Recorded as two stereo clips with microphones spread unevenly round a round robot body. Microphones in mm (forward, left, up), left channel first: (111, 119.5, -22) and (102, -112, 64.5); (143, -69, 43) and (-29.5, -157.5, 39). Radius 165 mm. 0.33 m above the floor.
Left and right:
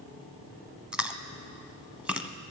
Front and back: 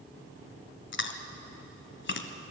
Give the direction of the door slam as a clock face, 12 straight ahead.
No door slam in this recording.